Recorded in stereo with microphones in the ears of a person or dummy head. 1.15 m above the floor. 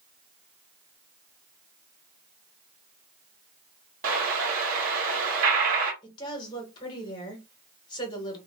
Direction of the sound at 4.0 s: 45° right (ahead or behind).